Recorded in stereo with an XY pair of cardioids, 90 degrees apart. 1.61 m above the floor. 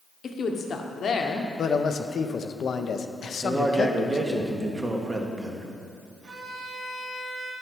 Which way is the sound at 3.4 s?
25° right.